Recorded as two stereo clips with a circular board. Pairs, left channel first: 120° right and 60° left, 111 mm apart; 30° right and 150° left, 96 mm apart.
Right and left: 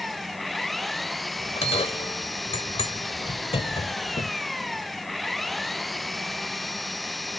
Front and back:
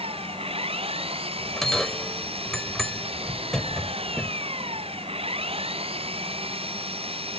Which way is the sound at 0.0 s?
150° left.